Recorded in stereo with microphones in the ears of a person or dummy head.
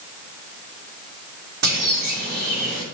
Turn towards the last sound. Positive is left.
turn(degrees=-50)  # may be behind; listen again after turning